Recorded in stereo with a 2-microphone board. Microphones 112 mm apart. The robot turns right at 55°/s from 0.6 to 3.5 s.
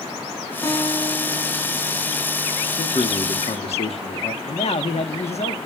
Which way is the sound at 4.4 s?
65° left (ahead or behind).